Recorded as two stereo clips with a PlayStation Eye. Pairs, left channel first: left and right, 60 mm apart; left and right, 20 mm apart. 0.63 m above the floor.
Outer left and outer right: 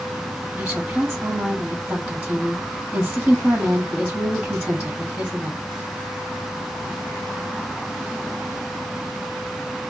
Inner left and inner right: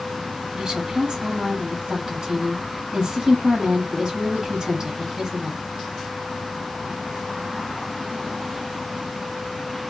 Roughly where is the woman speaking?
Centre.